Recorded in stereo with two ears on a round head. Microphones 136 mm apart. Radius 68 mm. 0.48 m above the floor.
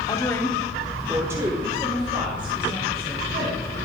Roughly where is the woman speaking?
Left.